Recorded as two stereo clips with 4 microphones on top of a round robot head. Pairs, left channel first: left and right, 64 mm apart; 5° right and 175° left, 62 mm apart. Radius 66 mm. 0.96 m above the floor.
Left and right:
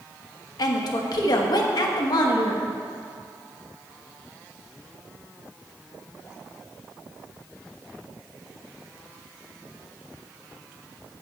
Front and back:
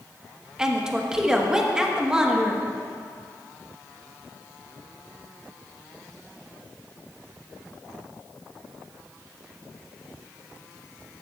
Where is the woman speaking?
95° left, 1.3 m.